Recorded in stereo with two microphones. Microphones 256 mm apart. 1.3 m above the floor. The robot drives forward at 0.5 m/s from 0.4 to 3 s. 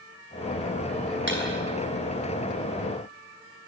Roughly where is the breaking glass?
Right.